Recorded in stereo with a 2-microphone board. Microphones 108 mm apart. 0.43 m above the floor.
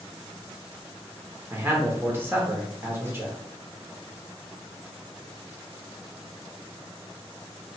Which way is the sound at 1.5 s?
20° right (ahead or behind).